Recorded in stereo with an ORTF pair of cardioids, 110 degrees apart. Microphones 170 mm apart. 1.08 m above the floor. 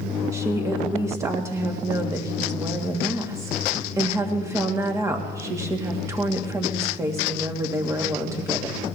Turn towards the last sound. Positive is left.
turn(degrees=-20)